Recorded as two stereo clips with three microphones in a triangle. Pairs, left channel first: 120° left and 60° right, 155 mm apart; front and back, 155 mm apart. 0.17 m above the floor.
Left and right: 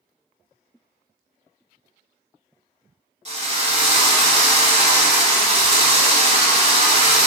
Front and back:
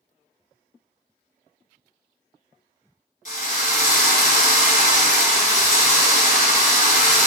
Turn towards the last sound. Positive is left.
turn(degrees=-20)